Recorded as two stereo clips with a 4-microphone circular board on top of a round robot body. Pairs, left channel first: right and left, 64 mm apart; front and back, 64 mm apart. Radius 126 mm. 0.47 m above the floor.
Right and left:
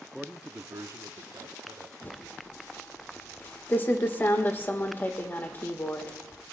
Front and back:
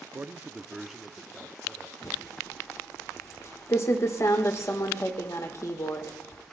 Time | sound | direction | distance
0.1 | a man speaking | 170° right | 0.8 m
2.0 | typing on a keyboard | 35° right | 1.6 m